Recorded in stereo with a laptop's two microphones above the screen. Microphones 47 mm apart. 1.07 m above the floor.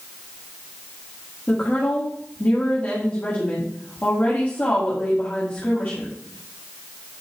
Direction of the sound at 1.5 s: 35° left (ahead or behind).